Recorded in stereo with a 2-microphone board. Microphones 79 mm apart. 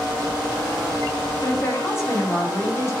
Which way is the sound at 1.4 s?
30° left (ahead or behind).